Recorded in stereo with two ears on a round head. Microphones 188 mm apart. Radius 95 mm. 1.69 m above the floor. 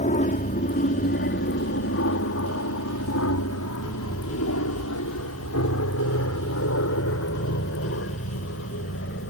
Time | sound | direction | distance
0.0 | an aircraft | 35° left (ahead or behind) | ?